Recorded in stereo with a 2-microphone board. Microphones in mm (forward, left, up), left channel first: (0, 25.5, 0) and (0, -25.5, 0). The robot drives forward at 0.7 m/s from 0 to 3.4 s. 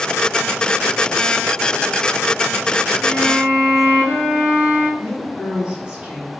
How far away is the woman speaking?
About 4 m.